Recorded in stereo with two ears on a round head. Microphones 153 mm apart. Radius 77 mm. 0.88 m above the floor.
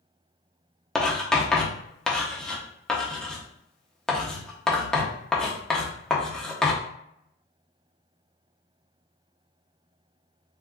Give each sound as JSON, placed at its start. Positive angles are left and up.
{"t": 0.9, "sound": "writing", "side_deg": 5, "distance_m": 0.6}